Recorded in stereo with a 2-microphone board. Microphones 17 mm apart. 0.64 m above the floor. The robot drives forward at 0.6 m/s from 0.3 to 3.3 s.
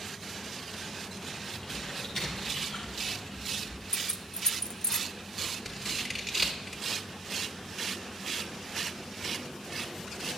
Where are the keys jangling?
35° left (ahead or behind), 0.5 m.